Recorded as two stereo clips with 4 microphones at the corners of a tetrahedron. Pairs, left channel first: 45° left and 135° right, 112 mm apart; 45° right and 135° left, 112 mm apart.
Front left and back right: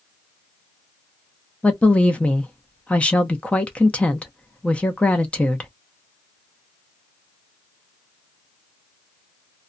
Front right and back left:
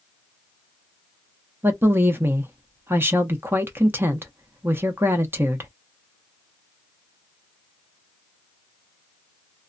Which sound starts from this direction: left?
A woman speaking, at 1.6 s.